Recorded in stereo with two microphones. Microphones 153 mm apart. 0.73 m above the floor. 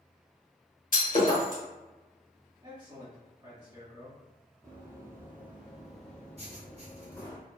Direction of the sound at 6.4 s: 45° right (ahead or behind).